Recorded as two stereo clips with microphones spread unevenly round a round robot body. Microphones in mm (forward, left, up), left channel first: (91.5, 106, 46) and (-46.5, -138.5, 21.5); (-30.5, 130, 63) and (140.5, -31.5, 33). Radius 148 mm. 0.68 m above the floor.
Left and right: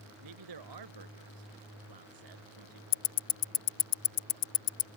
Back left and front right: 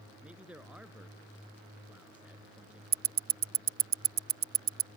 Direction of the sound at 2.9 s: 10° left.